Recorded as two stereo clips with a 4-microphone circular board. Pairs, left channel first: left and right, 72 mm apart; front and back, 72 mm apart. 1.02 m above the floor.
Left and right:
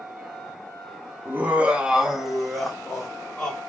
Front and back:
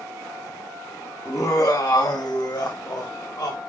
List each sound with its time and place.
1.2 s laughter: 35° right, 1.1 m; by 3.6 s 10° left, 1.9 m